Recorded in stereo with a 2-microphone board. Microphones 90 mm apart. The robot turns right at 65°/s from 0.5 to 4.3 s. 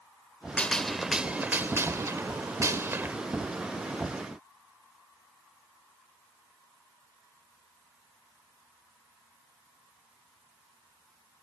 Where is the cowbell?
I don't hear a cowbell.